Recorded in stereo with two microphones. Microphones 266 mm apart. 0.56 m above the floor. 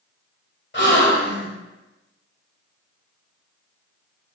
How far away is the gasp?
About 3 m.